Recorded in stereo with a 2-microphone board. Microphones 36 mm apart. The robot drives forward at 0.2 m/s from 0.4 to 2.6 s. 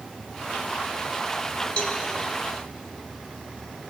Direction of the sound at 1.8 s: 40° left (ahead or behind).